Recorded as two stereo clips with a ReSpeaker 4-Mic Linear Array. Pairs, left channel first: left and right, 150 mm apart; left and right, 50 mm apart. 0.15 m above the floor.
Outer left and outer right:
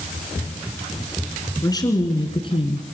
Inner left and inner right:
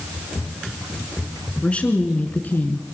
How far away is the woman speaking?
About 2 m.